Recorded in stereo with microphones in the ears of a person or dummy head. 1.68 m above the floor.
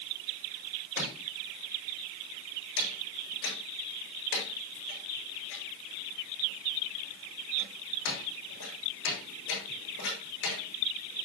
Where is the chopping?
65° left (ahead or behind), 7 m.